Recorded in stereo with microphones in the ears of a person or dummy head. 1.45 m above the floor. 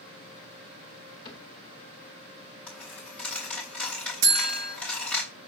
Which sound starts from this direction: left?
A cupboard door, at 1.2 s.